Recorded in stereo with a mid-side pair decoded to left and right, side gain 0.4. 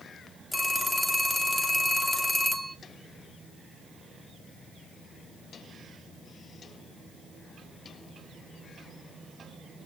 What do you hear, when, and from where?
0.5 s a phone ringing: 15° left, 1.3 m